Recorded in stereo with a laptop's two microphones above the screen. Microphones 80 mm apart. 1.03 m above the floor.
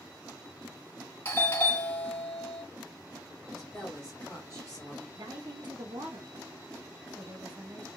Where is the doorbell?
30° left (ahead or behind), 1.3 m.